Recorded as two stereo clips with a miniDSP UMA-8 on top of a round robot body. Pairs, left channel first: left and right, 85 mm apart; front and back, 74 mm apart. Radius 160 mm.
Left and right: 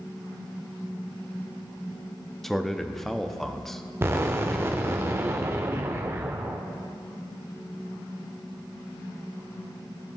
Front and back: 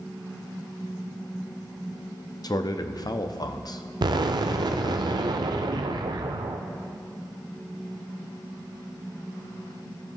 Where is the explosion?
155° right, 0.7 m.